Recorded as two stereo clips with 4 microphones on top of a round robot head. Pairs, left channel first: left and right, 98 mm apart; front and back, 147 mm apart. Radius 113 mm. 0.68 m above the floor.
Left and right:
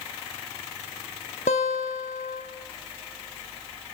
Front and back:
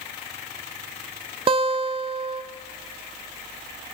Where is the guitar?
130° left, 0.6 m.